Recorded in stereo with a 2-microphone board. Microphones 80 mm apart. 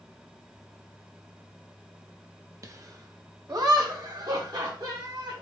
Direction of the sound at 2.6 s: 45° right (ahead or behind).